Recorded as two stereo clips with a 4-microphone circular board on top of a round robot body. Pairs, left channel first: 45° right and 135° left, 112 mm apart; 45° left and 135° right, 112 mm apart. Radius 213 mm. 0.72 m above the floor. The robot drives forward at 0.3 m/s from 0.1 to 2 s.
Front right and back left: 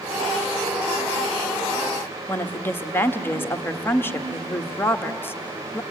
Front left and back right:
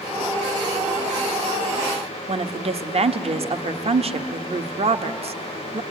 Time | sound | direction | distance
2.3 | a woman speaking | 115° right | 1.2 m